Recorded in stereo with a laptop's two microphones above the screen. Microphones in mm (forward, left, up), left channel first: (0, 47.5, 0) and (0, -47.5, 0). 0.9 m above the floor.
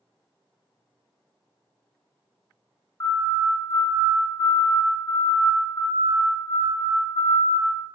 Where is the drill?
No drill in this recording.